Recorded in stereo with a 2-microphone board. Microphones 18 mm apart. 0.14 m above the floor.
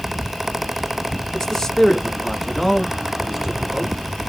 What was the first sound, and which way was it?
A man speaking, 35° left (ahead or behind).